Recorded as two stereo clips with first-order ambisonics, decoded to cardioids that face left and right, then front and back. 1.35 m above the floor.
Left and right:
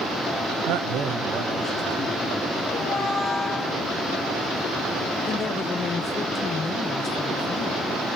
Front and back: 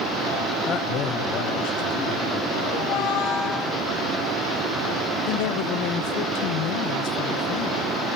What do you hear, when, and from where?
0.7 s a man speaking: 65° right, 0.7 m; by 3.7 s 5° left, 3.5 m
2.7 s a squeak: 15° left, 2.5 m
5.3 s a woman speaking: 20° left, 0.8 m